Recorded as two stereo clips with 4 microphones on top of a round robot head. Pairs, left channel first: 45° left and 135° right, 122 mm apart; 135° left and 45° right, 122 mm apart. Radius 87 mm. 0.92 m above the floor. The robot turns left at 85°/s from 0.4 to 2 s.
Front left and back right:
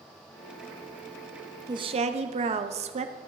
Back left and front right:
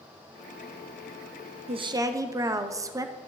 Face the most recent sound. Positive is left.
turn(degrees=-105)